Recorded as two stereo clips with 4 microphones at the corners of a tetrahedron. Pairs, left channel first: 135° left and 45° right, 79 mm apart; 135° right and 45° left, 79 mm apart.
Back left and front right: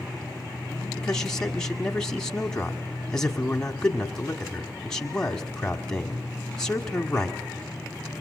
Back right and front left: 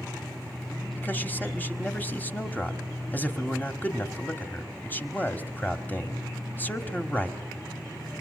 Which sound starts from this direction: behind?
A man speaking, at 1.0 s.